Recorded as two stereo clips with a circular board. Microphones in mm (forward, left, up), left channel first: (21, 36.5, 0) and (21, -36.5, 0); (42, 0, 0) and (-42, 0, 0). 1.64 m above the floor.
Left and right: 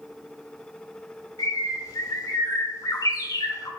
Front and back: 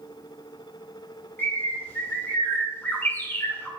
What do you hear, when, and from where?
1.4 s a bird: 65° left, 1.9 m